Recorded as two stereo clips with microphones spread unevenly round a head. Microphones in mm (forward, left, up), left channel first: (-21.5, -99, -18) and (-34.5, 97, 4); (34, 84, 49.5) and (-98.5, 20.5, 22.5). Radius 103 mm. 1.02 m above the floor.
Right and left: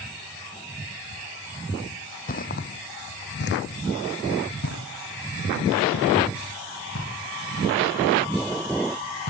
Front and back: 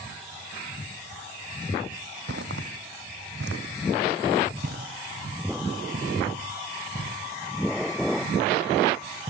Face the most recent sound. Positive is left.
turn(degrees=-95)